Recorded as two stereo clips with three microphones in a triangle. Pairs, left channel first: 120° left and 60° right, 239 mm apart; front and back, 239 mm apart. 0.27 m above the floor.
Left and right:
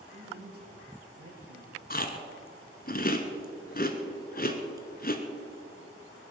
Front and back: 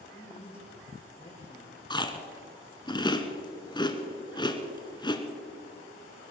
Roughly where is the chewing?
Left.